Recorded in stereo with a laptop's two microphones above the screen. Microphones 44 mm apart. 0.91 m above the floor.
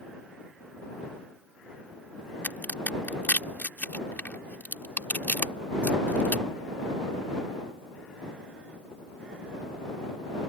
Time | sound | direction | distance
2.4 | a crack | 45° left (ahead or behind) | ?